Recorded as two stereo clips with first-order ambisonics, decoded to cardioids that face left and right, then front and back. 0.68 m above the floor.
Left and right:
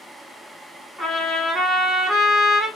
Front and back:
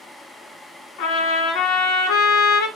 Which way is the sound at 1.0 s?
5° right.